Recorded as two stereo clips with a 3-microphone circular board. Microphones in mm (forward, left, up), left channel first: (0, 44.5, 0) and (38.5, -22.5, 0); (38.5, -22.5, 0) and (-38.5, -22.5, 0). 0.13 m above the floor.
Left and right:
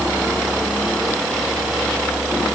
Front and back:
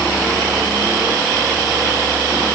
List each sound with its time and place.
Only background noise.